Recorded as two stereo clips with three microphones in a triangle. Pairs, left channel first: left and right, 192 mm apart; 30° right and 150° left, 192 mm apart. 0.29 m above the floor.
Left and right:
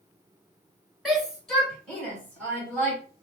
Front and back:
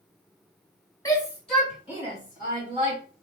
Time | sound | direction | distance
1.1 | a shout | straight ahead | 1.6 m